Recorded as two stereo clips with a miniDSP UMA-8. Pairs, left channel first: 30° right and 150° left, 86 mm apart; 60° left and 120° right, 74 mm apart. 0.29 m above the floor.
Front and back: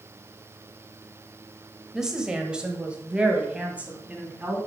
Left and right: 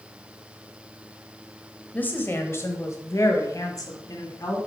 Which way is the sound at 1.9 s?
75° left.